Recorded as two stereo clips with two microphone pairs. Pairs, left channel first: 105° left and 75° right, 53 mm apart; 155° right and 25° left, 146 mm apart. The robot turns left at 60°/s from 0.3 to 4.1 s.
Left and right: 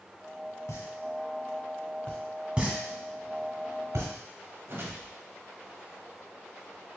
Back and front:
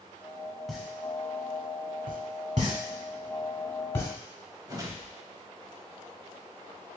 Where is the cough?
I don't hear a cough.